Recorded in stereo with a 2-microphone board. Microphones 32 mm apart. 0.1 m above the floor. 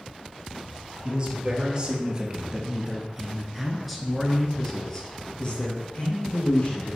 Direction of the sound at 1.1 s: 35° right (ahead or behind).